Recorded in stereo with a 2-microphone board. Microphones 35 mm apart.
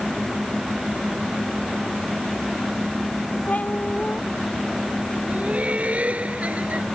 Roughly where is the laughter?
Right.